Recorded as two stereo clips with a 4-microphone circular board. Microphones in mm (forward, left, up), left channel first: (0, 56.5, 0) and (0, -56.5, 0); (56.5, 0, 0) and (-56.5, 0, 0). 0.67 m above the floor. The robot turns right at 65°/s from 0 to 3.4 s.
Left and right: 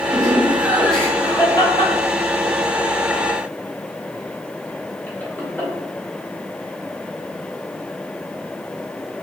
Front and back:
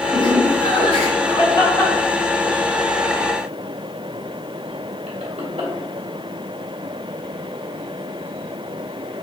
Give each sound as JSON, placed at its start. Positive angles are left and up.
{"t": 0.1, "sound": "laughter", "azimuth_deg": -50, "distance_m": 2.0}